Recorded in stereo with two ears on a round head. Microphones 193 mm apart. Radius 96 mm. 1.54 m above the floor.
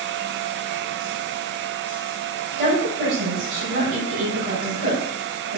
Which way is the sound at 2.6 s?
40° right (ahead or behind).